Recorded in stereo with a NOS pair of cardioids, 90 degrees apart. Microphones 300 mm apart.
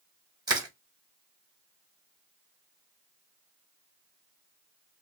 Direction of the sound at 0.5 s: 15° right.